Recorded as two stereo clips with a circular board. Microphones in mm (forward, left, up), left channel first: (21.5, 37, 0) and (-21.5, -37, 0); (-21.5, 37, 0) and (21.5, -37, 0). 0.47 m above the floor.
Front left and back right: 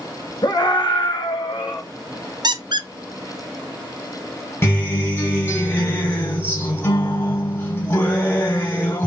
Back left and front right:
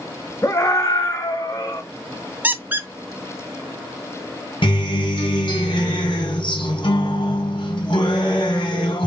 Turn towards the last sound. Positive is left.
turn(degrees=120)